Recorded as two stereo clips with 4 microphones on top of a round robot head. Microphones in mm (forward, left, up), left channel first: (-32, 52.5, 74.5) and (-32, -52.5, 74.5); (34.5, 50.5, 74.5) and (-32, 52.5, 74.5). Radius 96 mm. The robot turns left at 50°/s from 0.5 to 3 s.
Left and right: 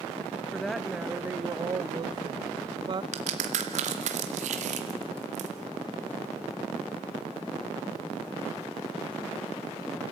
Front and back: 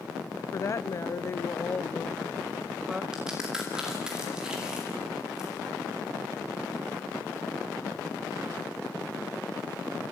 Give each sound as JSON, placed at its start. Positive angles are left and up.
{"t": 0.5, "sound": "a woman speaking", "azimuth_deg": 10, "distance_m": 0.5}
{"t": 3.1, "sound": "a crack", "azimuth_deg": -100, "distance_m": 2.0}